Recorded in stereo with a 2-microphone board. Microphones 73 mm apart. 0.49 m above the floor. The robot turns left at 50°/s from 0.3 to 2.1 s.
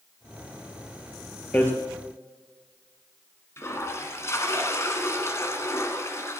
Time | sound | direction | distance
1.5 | hammering | 25° left (ahead or behind) | 2.5 m
3.6 | a toilet flushing | 40° left (ahead or behind) | 2 m